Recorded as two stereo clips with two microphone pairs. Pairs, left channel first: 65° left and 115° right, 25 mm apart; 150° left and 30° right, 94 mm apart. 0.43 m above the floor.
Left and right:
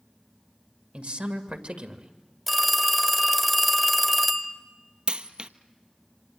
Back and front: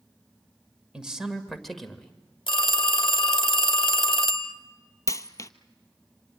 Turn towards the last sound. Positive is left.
turn(degrees=-160)